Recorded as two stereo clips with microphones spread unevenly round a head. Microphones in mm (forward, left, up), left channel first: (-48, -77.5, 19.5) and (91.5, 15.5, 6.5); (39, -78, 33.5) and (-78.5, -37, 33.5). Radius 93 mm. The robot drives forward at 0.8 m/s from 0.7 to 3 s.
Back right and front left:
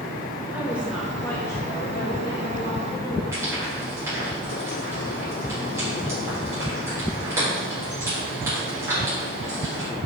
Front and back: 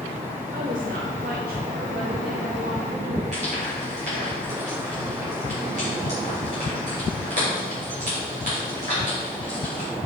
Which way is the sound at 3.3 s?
110° left.